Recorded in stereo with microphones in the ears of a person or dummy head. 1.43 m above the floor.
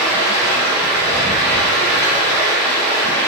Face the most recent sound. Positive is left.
turn(degrees=35)  # may be behind; listen again after turning